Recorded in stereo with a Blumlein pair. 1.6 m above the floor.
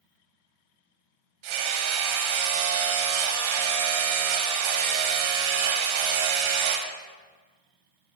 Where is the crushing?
No crushing in this recording.